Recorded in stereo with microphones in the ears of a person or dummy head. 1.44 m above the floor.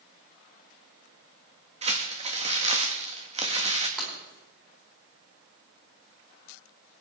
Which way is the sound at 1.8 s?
30° right (ahead or behind).